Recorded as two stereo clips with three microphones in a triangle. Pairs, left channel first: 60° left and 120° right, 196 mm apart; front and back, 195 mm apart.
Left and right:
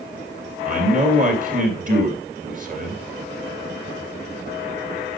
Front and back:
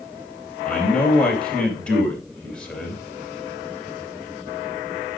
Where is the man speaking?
85° right, 2.5 m.